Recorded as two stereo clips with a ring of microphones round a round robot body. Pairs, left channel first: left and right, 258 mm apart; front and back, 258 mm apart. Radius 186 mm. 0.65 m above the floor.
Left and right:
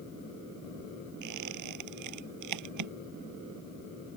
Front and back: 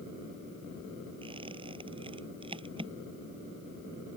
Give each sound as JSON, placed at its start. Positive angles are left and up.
{"t": 1.2, "sound": "a squeak", "azimuth_deg": -105}